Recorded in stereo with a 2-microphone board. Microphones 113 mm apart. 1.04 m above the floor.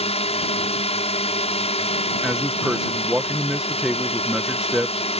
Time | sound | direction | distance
0.0 | a drone | 65° left (ahead or behind) | ?
2.2 | a man speaking | 5° right (ahead or behind) | ?